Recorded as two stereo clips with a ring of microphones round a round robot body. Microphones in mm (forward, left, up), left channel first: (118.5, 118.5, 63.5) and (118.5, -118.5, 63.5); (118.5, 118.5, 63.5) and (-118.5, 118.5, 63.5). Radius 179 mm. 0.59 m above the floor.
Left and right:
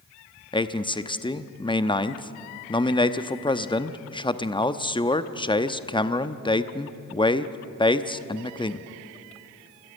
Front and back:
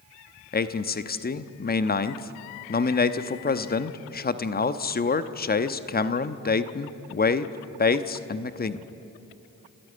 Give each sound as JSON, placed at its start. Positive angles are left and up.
{"t": 0.5, "sound": "a man speaking", "azimuth_deg": 25, "distance_m": 1.0}